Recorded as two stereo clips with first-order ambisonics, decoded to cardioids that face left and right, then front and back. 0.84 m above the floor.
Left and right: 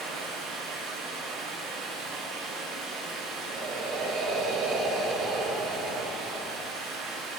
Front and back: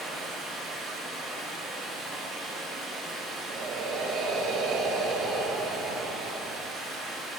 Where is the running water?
100° right, 2.5 m.